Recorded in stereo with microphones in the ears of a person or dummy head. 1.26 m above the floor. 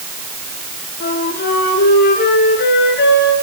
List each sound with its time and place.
1.0 s a flute: 60° left (ahead or behind), 6.5 m